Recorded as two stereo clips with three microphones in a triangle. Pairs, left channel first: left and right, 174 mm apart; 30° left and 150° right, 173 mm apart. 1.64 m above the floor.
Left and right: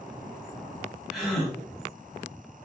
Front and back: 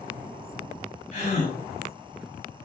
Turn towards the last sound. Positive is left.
turn(degrees=0)